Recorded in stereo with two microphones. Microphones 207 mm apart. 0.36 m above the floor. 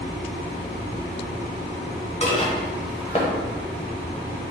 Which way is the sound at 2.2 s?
30° left (ahead or behind).